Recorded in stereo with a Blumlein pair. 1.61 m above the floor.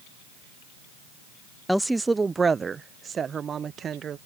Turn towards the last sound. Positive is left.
turn(degrees=-25)